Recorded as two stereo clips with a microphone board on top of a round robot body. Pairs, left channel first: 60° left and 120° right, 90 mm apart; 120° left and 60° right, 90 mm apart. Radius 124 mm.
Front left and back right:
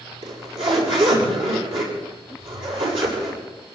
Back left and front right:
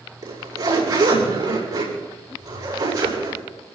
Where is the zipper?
110° right, 6.5 m.